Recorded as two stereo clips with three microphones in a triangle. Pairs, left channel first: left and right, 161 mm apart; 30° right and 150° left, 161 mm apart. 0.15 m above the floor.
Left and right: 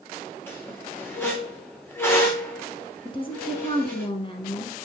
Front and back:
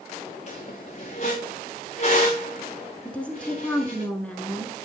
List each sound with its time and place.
0.5 s a squeak: 15° left, 2.5 m
3.0 s a woman speaking: 50° left, 1.5 m